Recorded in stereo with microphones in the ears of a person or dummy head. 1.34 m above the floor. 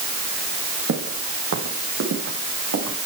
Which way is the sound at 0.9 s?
55° right (ahead or behind).